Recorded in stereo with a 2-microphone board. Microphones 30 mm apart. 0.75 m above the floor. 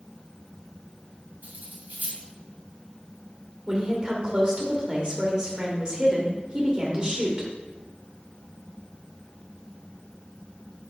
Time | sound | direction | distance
1.4 | cutlery clinking | 75° right (ahead or behind) | 3 m
3.7 | a woman speaking | 25° right (ahead or behind) | 2.5 m